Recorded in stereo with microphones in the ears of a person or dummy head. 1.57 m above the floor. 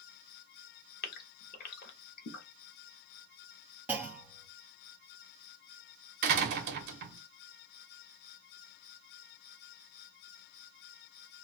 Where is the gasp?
55° left (ahead or behind), 1.0 m.